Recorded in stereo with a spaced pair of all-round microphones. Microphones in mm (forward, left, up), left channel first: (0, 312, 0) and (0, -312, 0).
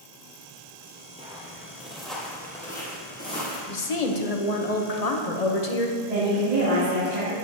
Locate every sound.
1.2 s footsteps: 10° right (ahead or behind), 1.4 m; by 3.6 s 10° left (ahead or behind), 2.5 m
3.7 s a woman speaking: 65° left (ahead or behind), 0.9 m
6.0 s a woman speaking: 70° right (ahead or behind), 2.5 m